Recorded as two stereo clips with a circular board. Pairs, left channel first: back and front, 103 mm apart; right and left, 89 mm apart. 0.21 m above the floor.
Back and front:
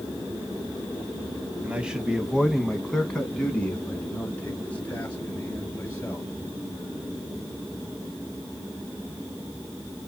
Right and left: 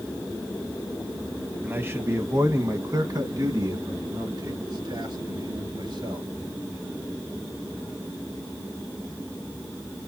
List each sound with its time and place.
1.6 s a man speaking: 60° left, 1.1 m; by 6.3 s 110° left, 3 m